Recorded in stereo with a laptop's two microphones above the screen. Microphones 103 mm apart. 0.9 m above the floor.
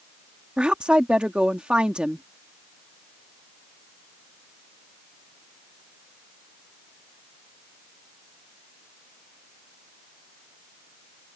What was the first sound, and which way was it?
A woman speaking, 10° right (ahead or behind).